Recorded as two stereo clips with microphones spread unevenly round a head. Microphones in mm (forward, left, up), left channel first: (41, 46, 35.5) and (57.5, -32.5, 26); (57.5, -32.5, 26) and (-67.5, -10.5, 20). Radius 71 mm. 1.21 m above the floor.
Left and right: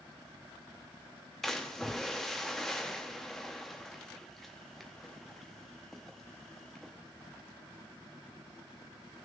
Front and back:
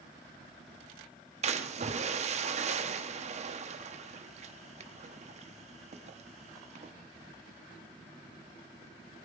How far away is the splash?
About 0.7 m.